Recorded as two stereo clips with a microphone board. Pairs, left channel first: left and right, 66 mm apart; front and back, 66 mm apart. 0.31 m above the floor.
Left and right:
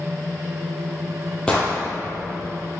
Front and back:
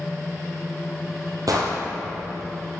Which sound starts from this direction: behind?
An explosion, at 1.5 s.